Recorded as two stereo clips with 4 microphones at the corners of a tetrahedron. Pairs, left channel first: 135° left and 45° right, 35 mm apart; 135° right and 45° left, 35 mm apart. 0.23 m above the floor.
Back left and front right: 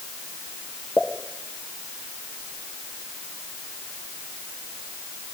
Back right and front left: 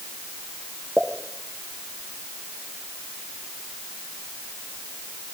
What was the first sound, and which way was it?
A pop, 130° left.